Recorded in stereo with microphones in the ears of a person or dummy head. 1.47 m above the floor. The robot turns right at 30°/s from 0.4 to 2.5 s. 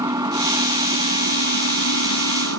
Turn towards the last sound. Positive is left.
turn(degrees=-100)